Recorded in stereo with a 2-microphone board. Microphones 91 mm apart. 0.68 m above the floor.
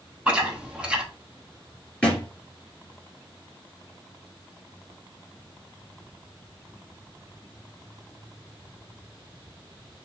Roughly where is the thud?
Centre.